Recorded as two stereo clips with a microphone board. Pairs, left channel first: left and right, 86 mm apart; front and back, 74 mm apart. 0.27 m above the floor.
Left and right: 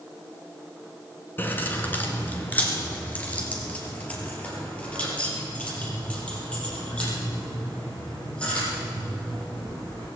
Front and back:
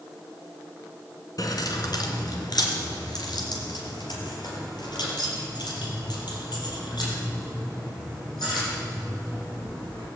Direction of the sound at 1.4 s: 25° left.